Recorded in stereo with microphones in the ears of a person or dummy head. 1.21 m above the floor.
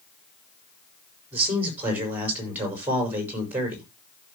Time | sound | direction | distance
1.3 | a man speaking | 10° right (ahead or behind) | 5.5 m